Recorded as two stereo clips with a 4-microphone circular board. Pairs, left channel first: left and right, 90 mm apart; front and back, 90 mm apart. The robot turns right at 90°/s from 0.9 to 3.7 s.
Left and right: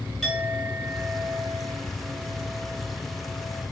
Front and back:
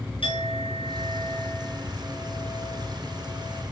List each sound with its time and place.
0.2 s a clink: straight ahead, 6 m; by 3.6 s 115° right, 6 m